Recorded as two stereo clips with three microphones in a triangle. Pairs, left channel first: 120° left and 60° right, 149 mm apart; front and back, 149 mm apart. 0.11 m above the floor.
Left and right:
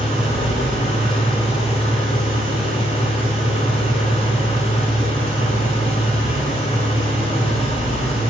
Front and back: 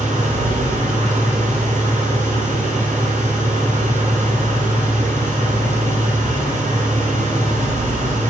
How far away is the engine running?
About 2.5 m.